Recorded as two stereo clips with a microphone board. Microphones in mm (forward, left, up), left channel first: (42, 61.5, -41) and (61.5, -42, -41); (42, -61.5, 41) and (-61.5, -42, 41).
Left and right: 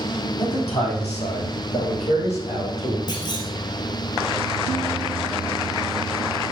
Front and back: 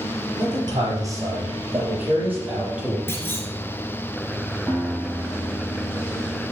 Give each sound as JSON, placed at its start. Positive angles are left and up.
{"t": 0.4, "sound": "a man speaking", "azimuth_deg": 125, "distance_m": 4.0}
{"t": 3.1, "sound": "a clunk", "azimuth_deg": 55, "distance_m": 2.0}
{"t": 4.7, "sound": "a guitar", "azimuth_deg": 60, "distance_m": 5.0}